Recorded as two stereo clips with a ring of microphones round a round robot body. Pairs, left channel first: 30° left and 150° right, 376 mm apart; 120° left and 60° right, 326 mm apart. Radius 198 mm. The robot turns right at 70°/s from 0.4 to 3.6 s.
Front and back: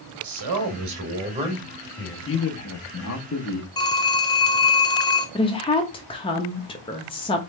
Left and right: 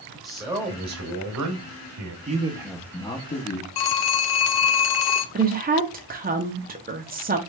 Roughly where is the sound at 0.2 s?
Behind right.